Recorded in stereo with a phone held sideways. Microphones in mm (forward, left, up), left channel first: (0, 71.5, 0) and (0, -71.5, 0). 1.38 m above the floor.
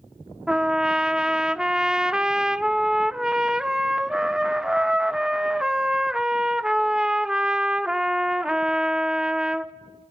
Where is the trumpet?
5° right (ahead or behind), 0.6 m.